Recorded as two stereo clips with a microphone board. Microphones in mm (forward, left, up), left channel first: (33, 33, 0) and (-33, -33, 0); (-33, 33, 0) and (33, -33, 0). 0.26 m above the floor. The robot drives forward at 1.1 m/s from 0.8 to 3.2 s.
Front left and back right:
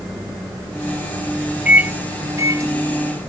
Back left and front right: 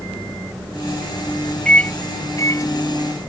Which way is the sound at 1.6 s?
175° right.